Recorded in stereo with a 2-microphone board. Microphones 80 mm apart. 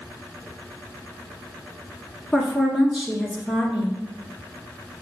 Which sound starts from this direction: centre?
A woman speaking, at 2.3 s.